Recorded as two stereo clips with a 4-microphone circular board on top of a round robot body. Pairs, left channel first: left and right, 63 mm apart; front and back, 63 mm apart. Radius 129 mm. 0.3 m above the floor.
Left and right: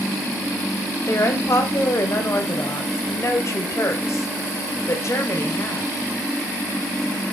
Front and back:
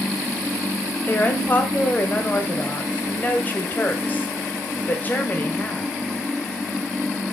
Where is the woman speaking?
55° left, 2 m.